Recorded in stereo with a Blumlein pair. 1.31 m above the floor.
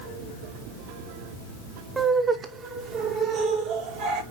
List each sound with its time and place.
2.0 s laughter: 10° right, 1.0 m; by 4.2 s 40° right, 2.0 m